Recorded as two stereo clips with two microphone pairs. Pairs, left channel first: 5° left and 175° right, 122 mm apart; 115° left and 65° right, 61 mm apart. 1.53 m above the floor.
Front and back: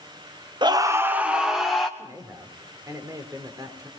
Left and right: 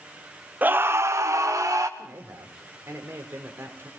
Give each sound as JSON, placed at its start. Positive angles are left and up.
{"t": 0.6, "sound": "a scream", "azimuth_deg": -125, "distance_m": 0.9}
{"t": 2.0, "sound": "a man speaking", "azimuth_deg": -110, "distance_m": 4.0}